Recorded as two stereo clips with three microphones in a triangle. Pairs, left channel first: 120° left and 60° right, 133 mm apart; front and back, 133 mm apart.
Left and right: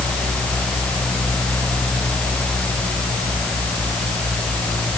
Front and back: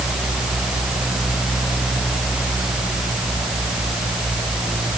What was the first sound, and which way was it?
Only background noise.